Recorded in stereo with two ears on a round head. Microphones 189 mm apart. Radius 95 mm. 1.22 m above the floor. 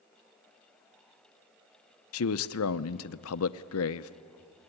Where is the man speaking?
75° left (ahead or behind), 0.6 m.